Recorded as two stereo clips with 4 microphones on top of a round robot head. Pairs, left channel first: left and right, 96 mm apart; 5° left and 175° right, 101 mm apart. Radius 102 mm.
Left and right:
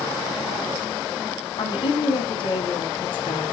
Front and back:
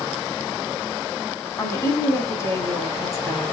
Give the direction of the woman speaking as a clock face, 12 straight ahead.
10 o'clock.